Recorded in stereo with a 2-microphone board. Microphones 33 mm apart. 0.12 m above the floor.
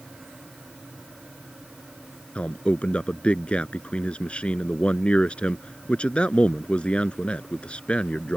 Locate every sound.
2.4 s a man speaking: 35° left (ahead or behind)